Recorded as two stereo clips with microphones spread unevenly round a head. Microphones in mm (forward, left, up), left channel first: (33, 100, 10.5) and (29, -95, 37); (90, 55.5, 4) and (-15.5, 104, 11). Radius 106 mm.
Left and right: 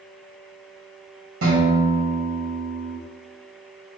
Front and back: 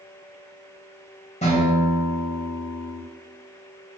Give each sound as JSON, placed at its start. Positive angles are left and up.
{"t": 1.4, "sound": "a guitar", "azimuth_deg": -80, "distance_m": 1.6}